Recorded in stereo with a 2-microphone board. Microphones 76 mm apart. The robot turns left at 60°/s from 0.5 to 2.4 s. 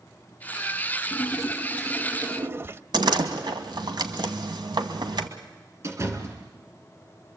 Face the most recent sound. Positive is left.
turn(degrees=-40)  # may be behind; listen again after turning